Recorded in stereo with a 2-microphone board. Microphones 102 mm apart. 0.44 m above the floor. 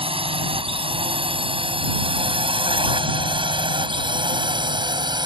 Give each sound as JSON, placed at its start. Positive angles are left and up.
{"t": 0.0, "sound": "a drone", "side_deg": -65}